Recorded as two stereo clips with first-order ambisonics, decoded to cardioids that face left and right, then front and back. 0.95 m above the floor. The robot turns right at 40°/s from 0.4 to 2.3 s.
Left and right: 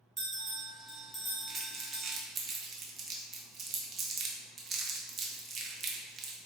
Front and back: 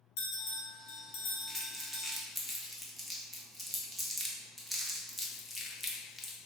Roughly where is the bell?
Ahead.